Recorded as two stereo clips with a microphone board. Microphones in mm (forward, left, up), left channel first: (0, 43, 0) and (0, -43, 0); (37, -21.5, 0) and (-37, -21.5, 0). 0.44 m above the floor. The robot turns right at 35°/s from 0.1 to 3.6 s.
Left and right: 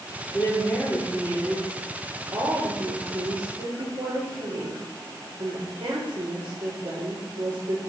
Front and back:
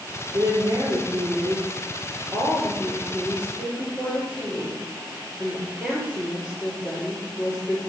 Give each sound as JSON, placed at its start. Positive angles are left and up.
{"t": 0.3, "sound": "a woman speaking", "azimuth_deg": 145, "distance_m": 7.5}